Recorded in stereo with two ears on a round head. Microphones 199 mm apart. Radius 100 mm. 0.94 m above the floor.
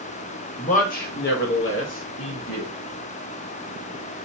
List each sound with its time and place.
0.6 s a man speaking: 30° left (ahead or behind), 0.9 m; by 2.7 s 65° left (ahead or behind), 1.7 m